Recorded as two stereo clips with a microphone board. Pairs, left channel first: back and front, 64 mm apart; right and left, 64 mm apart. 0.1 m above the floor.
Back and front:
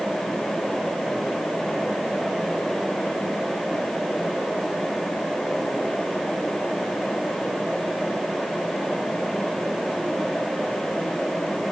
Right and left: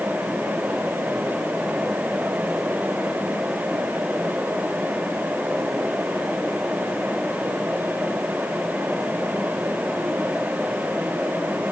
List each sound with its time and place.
Only background noise.